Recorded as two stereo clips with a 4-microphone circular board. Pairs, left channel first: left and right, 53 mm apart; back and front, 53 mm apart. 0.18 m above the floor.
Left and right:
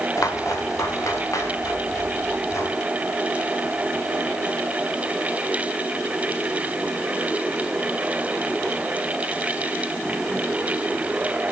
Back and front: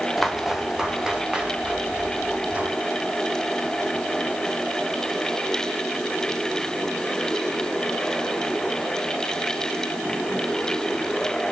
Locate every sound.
0.2 s footsteps: 85° left, 1.9 m; by 2.8 s 65° left, 3.5 m